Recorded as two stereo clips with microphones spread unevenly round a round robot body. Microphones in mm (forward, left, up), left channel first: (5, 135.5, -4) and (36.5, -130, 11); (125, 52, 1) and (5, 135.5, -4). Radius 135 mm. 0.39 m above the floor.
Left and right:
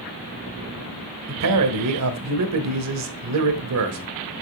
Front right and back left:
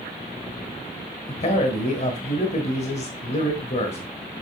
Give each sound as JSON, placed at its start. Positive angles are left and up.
{"t": 1.3, "sound": "a man speaking", "azimuth_deg": -85, "distance_m": 1.3}